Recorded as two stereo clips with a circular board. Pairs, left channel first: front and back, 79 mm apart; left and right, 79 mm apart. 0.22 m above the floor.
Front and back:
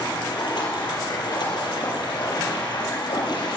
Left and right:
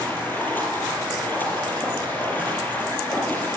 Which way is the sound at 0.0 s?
25° left.